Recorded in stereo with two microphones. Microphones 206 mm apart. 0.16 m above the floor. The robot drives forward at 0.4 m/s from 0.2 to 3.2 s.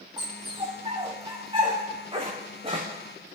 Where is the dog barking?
20° right (ahead or behind), 5.5 m; by 3.4 s 30° right (ahead or behind), 4.5 m.